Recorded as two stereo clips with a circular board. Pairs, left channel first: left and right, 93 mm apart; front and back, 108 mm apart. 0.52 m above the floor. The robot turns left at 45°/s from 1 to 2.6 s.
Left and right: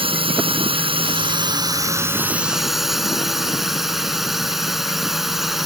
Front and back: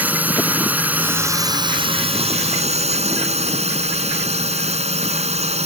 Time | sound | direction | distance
0.0 | a drone | 105° right | ?